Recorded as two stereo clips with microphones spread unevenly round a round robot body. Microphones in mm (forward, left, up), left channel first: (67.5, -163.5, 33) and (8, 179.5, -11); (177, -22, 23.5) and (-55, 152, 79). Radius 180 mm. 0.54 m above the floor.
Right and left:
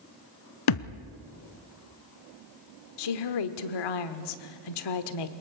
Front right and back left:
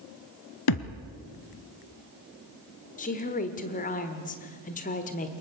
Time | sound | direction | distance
0.7 | a thud | 75° right | 0.9 m
3.0 | a woman speaking | 95° right | 1.3 m